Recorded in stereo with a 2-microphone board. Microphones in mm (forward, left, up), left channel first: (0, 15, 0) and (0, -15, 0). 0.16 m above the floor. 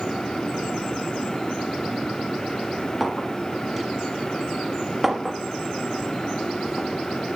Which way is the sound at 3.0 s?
5° right (ahead or behind).